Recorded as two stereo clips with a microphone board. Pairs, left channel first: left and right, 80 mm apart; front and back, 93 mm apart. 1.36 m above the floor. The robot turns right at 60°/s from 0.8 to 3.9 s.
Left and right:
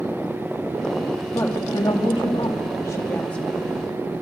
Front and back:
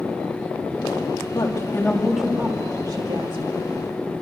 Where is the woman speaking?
45° left, 3 m; by 3.5 s 170° left, 3 m.